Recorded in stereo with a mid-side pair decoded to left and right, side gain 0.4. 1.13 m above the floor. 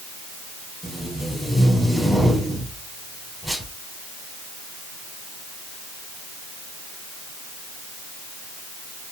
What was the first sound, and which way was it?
Tape being pulled, straight ahead.